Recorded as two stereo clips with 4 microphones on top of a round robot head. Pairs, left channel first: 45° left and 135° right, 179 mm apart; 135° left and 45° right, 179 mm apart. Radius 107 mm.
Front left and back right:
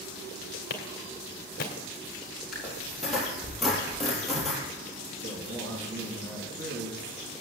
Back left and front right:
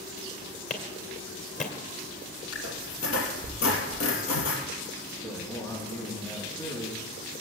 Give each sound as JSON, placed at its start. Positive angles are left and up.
{"t": 0.7, "sound": "a clap", "azimuth_deg": 85, "distance_m": 2.0}
{"t": 2.5, "sound": "a squeak", "azimuth_deg": 135, "distance_m": 3.0}
{"t": 5.1, "sound": "a man speaking", "azimuth_deg": -145, "distance_m": 7.5}